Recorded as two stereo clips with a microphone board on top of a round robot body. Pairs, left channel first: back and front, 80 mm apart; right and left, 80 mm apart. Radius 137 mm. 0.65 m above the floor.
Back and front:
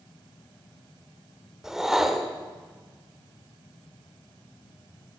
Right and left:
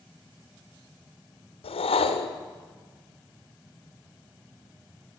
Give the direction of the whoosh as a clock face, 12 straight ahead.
3 o'clock.